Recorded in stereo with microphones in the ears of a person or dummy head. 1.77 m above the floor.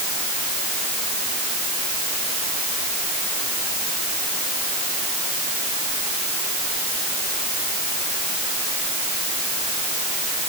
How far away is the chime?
I don't hear a chime.